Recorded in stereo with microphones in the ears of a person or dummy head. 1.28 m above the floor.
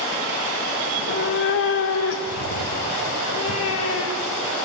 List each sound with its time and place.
0.9 s a cat meowing: 60° left (ahead or behind), 1.5 m; by 4.5 s 80° left, 3.5 m